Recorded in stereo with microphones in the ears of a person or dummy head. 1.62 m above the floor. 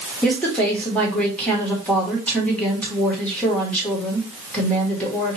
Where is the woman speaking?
10° left (ahead or behind), 1.3 m.